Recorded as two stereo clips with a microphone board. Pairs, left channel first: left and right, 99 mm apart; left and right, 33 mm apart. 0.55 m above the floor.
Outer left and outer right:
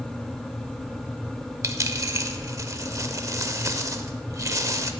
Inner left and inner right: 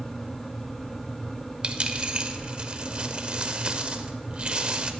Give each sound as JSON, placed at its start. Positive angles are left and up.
{"t": 1.6, "sound": "a dropped coin", "side_deg": -35, "distance_m": 0.6}